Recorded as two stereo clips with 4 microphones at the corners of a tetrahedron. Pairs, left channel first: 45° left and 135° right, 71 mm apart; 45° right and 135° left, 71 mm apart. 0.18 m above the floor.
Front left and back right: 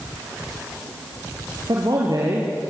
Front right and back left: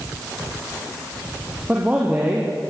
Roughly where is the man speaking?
Behind right.